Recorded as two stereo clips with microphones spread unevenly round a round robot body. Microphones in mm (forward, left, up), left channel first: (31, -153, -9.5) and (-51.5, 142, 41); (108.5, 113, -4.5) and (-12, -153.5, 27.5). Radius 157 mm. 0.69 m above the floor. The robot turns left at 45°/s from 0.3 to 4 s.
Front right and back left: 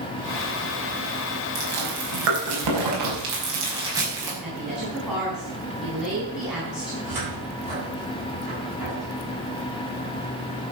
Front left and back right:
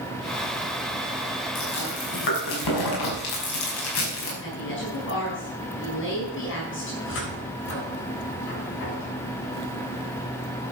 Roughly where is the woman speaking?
Ahead.